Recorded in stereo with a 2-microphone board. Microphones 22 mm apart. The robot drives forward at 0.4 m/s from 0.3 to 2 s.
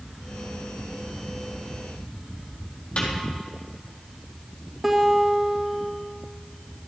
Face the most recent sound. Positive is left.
turn(degrees=-10)  # may be behind; listen again after turning